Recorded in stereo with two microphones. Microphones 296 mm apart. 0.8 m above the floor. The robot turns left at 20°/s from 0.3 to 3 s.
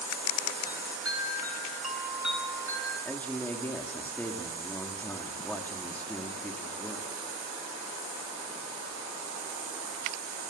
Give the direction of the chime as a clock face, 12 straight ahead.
7 o'clock.